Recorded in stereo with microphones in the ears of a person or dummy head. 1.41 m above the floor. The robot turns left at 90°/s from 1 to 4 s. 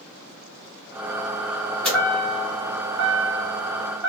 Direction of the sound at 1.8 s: 10° left (ahead or behind).